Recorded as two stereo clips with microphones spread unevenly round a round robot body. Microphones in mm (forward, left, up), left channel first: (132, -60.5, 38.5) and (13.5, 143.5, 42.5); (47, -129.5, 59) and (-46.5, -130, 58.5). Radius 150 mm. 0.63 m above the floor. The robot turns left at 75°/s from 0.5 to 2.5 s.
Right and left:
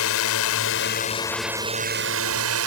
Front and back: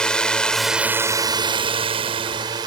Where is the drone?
80° right; by 2.7 s 130° left.